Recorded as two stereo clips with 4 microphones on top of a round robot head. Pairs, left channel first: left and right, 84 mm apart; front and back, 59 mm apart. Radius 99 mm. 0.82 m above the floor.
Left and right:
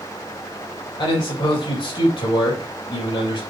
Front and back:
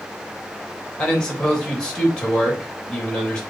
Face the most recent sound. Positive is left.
turn(degrees=75)